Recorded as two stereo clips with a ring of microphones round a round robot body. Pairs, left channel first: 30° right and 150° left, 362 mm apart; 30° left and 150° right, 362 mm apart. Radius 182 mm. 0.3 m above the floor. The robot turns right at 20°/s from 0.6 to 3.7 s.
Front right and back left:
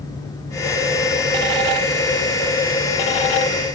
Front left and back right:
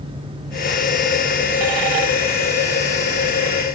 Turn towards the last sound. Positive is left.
No sound to turn to.